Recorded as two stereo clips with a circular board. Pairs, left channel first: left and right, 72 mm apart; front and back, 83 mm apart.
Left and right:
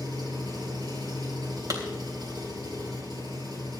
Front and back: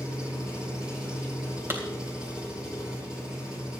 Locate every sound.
0.0 s an engine running: 100° right, 7 m
1.7 s a clap: 115° right, 3 m